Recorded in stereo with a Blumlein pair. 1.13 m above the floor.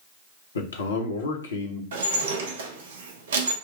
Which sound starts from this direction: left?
A man speaking, at 0.6 s.